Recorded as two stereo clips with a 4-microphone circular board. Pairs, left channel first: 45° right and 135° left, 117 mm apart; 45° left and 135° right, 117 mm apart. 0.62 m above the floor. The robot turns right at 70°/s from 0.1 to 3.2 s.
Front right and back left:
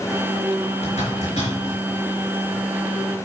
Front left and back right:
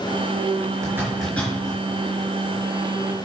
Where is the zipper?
70° right, 3.5 m; by 1.8 s 5° right, 3.5 m.